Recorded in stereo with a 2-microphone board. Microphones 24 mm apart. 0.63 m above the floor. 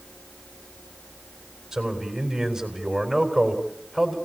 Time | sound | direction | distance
1.7 | a man speaking | 15° right (ahead or behind) | 4 m